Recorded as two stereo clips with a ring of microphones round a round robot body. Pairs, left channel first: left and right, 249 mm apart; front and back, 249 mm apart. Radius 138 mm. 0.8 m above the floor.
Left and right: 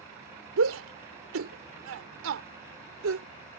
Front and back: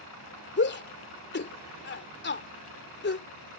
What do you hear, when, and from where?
0.6 s a shout: 45° right